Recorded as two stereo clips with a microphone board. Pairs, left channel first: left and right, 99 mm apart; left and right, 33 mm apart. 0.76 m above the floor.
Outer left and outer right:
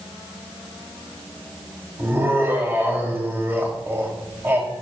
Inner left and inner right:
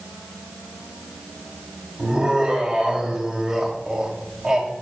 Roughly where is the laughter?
Right.